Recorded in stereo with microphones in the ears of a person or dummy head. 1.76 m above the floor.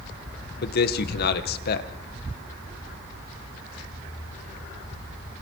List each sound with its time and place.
0.6 s a man speaking: 65° left (ahead or behind), 2 m